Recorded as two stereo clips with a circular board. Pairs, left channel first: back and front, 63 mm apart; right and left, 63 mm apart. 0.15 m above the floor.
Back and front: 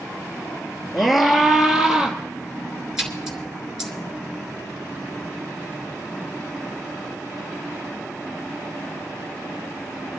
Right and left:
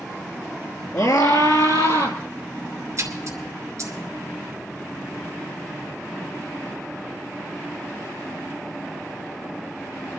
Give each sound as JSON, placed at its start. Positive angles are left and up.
{"t": 0.9, "sound": "a scream", "azimuth_deg": -90, "distance_m": 2.5}
{"t": 3.0, "sound": "a splash", "azimuth_deg": 80, "distance_m": 2.0}